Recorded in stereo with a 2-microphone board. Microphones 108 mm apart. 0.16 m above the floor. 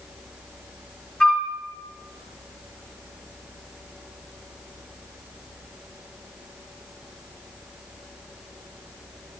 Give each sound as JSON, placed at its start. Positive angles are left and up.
{"t": 1.2, "sound": "a flute", "side_deg": 10, "distance_m": 1.1}